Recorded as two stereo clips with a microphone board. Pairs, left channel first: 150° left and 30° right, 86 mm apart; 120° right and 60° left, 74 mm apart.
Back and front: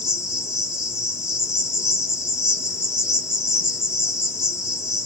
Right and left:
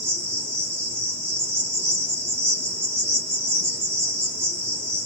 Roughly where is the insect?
Ahead left.